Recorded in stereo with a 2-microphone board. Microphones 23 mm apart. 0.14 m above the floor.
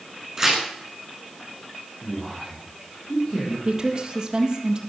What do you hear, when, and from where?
0.4 s tearing paper: 20° right (ahead or behind), 10 m
2.0 s a man speaking: 45° left (ahead or behind), 6.5 m
3.6 s a woman speaking: 30° right (ahead or behind), 4 m